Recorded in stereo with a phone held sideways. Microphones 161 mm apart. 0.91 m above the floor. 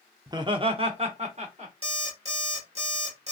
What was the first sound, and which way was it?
Laughter, 20° right (ahead or behind).